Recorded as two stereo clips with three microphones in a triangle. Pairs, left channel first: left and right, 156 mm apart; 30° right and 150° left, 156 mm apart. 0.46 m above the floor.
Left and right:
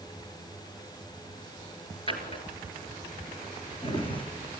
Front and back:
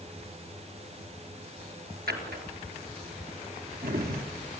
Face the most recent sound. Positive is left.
turn(degrees=145)